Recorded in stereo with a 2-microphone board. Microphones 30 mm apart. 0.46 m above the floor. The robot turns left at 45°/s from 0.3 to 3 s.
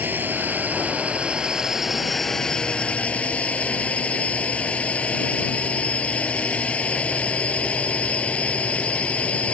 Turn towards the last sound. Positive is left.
turn(degrees=135)